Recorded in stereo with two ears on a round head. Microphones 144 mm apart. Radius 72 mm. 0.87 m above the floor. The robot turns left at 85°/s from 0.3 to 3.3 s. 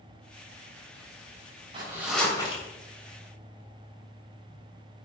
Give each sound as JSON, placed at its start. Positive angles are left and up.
{"t": 1.7, "sound": "a zipper", "azimuth_deg": -145, "distance_m": 3.0}